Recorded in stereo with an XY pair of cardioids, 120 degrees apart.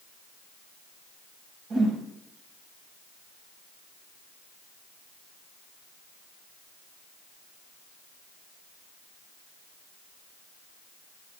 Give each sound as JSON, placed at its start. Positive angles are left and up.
{"t": 1.7, "sound": "a whoosh", "azimuth_deg": -60, "distance_m": 5.0}